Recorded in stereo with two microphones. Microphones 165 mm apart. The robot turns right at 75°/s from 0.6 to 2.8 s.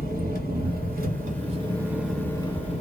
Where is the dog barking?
I don't hear a dog barking.